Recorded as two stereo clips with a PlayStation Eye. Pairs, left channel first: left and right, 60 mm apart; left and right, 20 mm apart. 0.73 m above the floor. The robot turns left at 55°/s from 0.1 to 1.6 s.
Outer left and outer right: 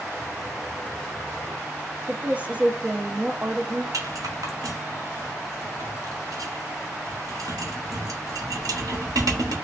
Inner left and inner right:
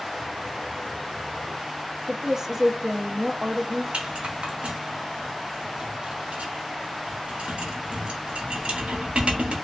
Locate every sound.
2.1 s a woman speaking: 25° right (ahead or behind), 0.6 m
3.9 s a rattle: 80° right, 0.8 m